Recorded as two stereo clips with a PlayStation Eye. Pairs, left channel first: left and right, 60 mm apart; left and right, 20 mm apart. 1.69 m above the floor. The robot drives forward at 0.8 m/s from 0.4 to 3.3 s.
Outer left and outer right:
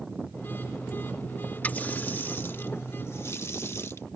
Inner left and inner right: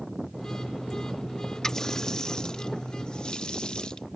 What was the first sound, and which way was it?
A running tap, 30° left (ahead or behind).